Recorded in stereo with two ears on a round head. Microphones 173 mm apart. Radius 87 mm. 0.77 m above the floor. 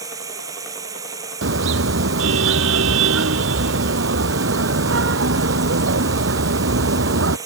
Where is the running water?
20° right (ahead or behind).